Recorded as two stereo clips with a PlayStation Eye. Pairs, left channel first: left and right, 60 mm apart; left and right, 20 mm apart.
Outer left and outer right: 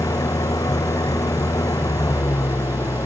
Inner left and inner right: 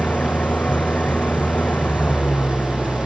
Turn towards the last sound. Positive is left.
turn(degrees=85)